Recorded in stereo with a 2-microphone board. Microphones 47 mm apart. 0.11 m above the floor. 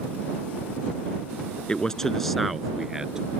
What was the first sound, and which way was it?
A man speaking, 20° left (ahead or behind).